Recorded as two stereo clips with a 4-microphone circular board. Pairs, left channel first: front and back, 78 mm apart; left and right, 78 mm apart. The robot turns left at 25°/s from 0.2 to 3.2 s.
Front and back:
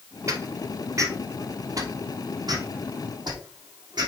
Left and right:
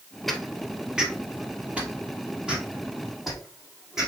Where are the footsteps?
175° left, 1.4 m; by 4.1 s 175° right, 3.5 m.